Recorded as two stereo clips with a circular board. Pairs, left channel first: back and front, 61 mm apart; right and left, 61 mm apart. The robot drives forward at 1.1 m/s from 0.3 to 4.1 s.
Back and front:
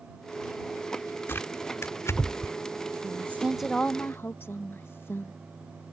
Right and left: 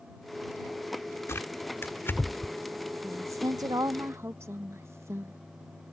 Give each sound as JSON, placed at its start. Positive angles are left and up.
{"t": 1.3, "sound": "tearing paper", "azimuth_deg": -130}
{"t": 3.0, "sound": "a woman speaking", "azimuth_deg": 40}